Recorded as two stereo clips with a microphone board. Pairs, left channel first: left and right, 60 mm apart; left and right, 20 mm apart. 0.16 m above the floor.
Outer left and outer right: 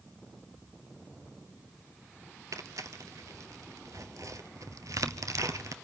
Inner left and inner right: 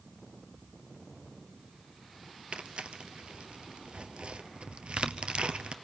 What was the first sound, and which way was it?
Tearing paper, 65° right (ahead or behind).